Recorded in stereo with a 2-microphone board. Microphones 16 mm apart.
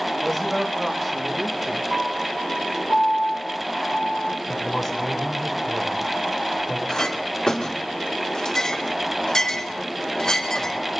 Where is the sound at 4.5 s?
5° right (ahead or behind), 6.5 m.